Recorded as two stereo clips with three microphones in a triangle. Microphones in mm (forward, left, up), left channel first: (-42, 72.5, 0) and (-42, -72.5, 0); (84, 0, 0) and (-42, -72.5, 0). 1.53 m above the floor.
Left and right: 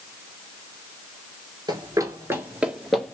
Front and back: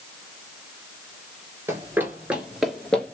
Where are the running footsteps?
100° right, 1.6 m; by 3.1 s 40° left, 1.5 m.